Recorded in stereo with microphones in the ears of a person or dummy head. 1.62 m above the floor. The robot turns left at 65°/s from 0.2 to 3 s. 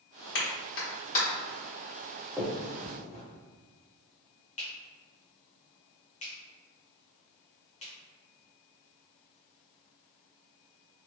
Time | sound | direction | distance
0.3 | a clap | 55° left (ahead or behind) | 1.2 m
2.4 | a finger snap | centre (ahead or behind) | 0.6 m